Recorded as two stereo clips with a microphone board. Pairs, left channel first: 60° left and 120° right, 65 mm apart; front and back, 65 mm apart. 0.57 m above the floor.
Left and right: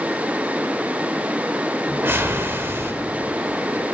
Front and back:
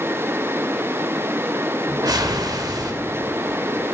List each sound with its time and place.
1.9 s a whoosh: 175° right, 0.9 m